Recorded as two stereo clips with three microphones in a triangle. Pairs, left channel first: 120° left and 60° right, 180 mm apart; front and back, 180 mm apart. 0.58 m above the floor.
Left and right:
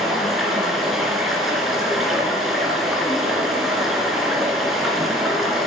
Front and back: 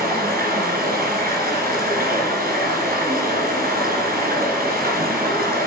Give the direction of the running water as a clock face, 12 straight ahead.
5 o'clock.